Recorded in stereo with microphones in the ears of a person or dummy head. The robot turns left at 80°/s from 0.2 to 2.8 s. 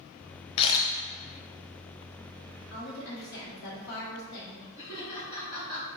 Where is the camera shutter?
35° left (ahead or behind), 0.7 m; by 0.9 s 5° left (ahead or behind), 0.7 m.